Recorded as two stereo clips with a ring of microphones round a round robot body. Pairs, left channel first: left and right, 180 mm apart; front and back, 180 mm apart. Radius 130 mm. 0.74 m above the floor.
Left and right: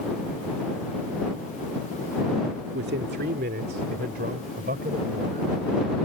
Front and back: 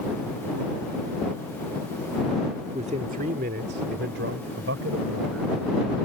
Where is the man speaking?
115° right; by 5.5 s 150° right.